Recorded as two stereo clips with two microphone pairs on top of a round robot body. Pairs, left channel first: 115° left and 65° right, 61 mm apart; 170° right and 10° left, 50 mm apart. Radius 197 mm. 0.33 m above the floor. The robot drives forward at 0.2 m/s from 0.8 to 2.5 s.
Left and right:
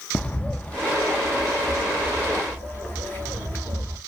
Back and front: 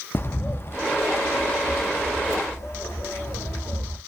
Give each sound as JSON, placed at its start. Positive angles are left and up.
{"t": 0.1, "sound": "a bird", "azimuth_deg": -165, "distance_m": 0.5}